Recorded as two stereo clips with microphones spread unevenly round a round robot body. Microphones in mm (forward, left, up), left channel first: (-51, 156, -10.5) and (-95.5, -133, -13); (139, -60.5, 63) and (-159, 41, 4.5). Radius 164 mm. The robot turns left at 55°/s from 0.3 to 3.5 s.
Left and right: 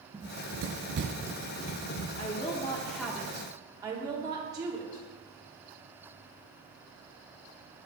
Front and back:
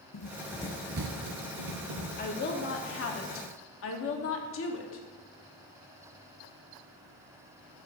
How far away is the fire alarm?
No fire alarm in this recording.